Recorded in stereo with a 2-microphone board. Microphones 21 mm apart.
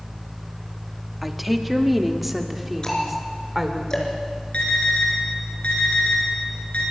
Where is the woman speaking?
5° right (ahead or behind), 1.5 m.